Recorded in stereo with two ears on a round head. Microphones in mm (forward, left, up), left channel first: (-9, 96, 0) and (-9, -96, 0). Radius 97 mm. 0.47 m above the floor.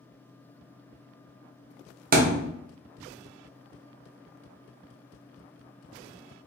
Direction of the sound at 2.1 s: 40° right (ahead or behind).